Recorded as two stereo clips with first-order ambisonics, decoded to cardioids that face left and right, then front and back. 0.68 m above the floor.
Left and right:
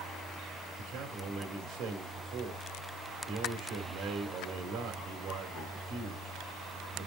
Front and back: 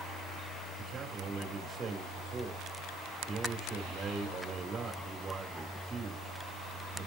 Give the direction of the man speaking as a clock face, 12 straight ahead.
4 o'clock.